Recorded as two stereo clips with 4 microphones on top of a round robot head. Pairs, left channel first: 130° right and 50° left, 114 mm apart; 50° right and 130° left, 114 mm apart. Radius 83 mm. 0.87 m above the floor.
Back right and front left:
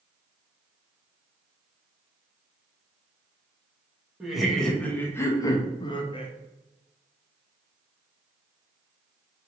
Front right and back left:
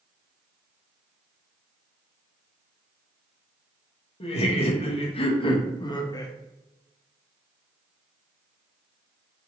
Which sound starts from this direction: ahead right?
Laughter, at 4.2 s.